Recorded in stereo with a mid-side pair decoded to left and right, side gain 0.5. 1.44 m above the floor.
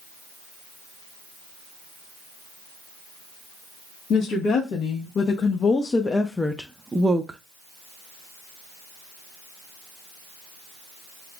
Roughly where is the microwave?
I don't hear a microwave.